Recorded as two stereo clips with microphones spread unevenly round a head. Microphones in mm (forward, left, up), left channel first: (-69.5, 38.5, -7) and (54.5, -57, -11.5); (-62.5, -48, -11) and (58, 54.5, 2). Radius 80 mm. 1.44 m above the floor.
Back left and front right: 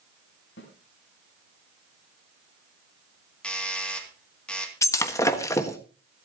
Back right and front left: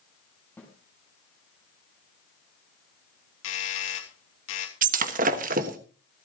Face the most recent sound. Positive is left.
turn(degrees=70)